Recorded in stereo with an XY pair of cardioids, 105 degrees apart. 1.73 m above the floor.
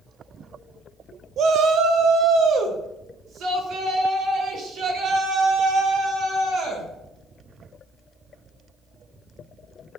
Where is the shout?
65° right, 1.0 m.